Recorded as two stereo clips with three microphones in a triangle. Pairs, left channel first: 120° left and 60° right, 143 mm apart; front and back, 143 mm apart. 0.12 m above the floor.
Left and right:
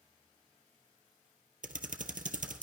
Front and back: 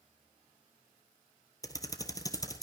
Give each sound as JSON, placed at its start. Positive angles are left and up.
{"t": 1.6, "sound": "typing on a keyboard", "azimuth_deg": -65, "distance_m": 1.1}